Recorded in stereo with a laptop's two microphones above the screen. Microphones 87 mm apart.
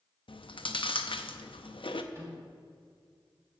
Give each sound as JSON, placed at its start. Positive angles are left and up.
{"t": 0.3, "sound": "chewing", "side_deg": 65, "distance_m": 0.6}
{"t": 2.1, "sound": "a microwave", "side_deg": -30, "distance_m": 2.0}